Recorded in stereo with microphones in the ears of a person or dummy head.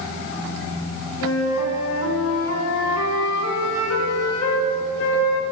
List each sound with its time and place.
1.2 s a flute: 80° left, 0.7 m